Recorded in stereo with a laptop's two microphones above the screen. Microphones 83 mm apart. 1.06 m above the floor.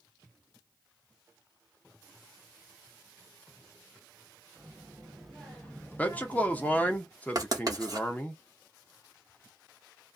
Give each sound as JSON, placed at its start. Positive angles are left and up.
{"t": 4.6, "sound": "a child speaking", "side_deg": -15, "distance_m": 1.3}
{"t": 6.0, "sound": "a man speaking", "side_deg": 20, "distance_m": 0.7}
{"t": 7.3, "sound": "writing", "side_deg": -45, "distance_m": 0.9}